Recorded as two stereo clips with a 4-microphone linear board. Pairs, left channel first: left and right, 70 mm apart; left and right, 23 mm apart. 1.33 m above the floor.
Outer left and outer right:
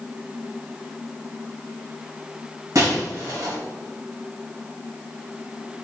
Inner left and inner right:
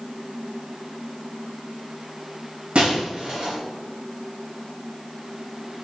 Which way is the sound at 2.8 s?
60° right (ahead or behind).